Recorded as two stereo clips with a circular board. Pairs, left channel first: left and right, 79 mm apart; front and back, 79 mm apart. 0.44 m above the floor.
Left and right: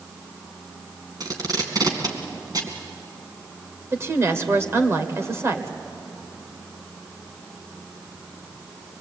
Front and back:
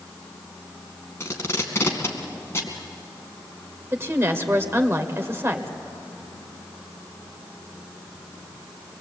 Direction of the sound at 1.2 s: 55° right.